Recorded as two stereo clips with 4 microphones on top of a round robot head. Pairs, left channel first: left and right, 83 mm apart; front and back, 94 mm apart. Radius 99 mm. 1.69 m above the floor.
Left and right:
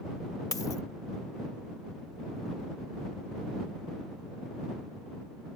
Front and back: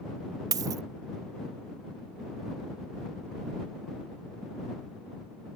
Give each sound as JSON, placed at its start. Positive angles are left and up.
{"t": 0.5, "sound": "a dropped coin", "azimuth_deg": 150}